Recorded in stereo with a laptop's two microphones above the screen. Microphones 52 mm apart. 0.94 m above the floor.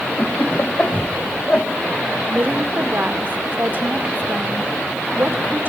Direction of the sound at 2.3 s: 35° right (ahead or behind).